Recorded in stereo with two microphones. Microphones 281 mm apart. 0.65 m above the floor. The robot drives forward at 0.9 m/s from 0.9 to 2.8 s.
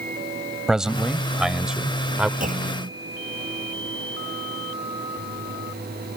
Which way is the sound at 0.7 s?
Centre (ahead or behind).